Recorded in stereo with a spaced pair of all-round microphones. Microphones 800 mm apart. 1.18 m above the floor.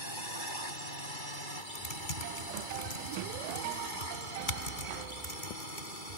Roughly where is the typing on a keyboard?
Left.